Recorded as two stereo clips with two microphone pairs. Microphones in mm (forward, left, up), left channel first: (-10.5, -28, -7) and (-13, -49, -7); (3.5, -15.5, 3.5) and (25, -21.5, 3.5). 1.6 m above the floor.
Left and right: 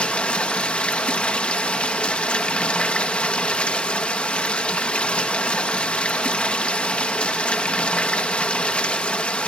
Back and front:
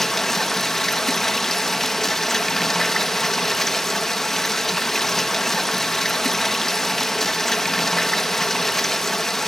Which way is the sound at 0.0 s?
90° left.